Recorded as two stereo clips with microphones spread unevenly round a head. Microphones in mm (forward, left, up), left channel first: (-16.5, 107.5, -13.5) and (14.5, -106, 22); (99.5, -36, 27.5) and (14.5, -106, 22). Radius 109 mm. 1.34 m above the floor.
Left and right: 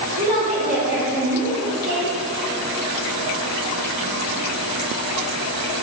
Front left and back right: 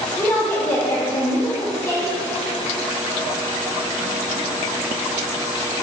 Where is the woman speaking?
25° right, 1.1 m.